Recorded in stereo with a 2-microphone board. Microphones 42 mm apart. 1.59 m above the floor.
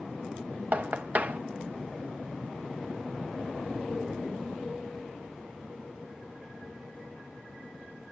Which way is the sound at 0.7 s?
40° right (ahead or behind).